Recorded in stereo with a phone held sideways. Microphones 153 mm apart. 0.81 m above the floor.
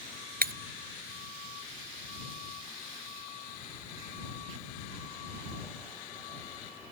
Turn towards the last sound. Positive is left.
turn(degrees=-80)